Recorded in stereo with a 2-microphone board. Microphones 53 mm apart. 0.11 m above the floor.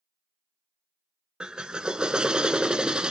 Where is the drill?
20° right (ahead or behind), 0.7 m.